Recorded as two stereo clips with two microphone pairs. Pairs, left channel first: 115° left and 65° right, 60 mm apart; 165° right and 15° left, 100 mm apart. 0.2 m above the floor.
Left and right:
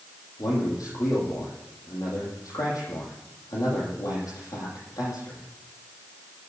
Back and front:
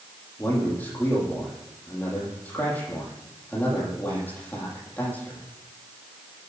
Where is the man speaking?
125° left, 9.5 m.